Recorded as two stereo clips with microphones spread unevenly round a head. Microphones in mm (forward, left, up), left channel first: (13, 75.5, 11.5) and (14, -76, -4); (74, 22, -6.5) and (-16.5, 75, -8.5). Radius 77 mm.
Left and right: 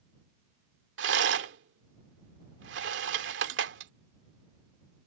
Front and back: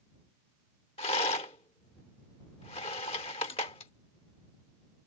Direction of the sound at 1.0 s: 85° right.